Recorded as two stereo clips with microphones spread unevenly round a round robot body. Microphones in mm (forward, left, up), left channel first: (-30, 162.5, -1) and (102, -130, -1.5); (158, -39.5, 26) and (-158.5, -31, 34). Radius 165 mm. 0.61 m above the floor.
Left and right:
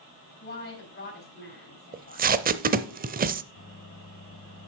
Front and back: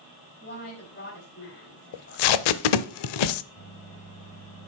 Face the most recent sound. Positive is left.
turn(degrees=65)